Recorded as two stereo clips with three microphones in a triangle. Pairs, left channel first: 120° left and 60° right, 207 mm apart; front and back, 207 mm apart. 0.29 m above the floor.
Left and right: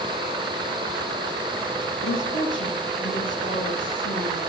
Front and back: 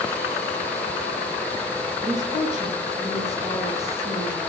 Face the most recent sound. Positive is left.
turn(degrees=110)